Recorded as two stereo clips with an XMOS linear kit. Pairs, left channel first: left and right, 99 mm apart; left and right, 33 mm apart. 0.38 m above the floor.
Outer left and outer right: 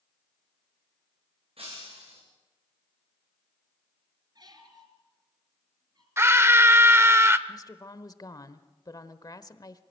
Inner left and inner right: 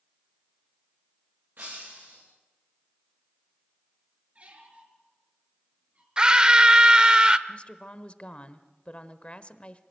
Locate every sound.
1.6 s breaking glass: 70° right (ahead or behind), 9 m
4.3 s a squeak: 45° right (ahead or behind), 3.5 m
6.2 s a scream: 25° right (ahead or behind), 0.8 m
7.5 s a woman speaking: 40° left (ahead or behind), 1.1 m